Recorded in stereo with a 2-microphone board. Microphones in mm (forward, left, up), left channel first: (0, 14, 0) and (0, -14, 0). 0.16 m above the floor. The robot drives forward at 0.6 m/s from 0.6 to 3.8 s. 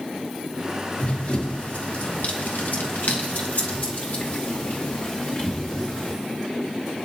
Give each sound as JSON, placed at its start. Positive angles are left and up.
{"t": 1.0, "sound": "running footsteps", "side_deg": 45, "distance_m": 3.5}